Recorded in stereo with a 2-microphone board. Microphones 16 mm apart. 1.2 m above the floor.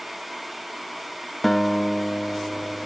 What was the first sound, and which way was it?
A guitar, 10° left (ahead or behind).